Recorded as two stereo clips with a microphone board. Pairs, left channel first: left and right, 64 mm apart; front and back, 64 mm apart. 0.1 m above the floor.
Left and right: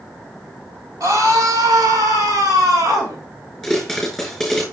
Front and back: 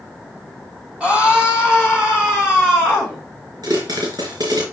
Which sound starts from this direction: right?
A scream, at 1.0 s.